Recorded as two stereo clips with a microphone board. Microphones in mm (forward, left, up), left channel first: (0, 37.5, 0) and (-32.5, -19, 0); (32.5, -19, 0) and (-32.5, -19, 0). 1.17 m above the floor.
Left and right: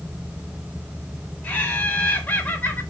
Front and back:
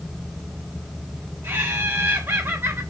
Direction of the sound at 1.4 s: 130° left.